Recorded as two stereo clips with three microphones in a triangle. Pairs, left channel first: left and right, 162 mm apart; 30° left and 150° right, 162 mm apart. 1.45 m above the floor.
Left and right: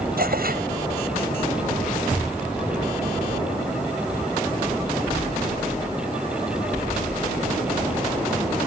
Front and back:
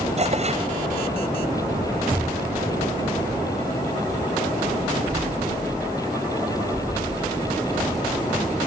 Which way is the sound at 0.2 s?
105° right.